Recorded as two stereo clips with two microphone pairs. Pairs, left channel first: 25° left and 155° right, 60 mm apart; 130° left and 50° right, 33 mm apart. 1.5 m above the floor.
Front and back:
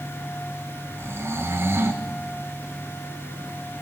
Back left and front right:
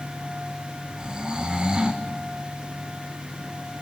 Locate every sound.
1.0 s snoring: 110° right, 1.9 m